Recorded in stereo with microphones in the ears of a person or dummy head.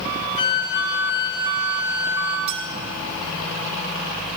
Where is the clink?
40° right (ahead or behind), 2.5 m.